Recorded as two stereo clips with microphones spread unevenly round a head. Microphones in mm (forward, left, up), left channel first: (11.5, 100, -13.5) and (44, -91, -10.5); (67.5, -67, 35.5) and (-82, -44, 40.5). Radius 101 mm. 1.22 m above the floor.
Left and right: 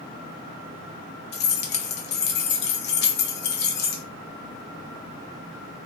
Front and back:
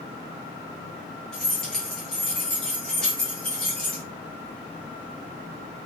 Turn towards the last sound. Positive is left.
turn(degrees=80)